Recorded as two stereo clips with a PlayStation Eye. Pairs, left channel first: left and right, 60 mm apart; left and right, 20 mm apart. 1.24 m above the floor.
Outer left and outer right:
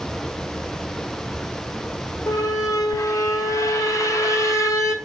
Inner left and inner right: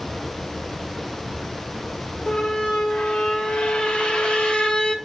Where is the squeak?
65° left (ahead or behind), 1.9 m.